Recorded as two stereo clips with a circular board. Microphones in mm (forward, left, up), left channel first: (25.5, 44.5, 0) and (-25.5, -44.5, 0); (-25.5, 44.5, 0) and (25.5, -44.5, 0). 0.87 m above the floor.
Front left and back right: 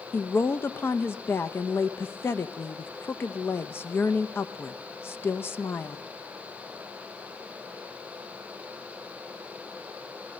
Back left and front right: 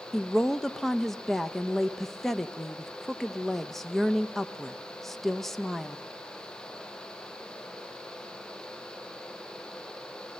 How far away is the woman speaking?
About 0.6 m.